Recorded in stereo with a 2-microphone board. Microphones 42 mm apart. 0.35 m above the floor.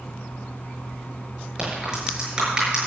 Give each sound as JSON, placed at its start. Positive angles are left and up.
{"t": 1.6, "sound": "a crack", "side_deg": -20, "distance_m": 6.5}